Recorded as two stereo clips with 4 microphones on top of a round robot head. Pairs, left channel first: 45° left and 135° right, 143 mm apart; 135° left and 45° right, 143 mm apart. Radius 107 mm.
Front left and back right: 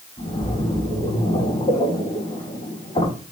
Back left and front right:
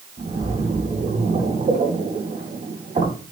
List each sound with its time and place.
0.2 s a splash: straight ahead, 3.5 m